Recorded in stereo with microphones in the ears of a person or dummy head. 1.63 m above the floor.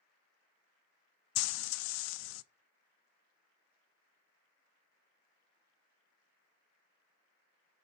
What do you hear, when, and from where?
1.4 s frying: 85° left, 0.5 m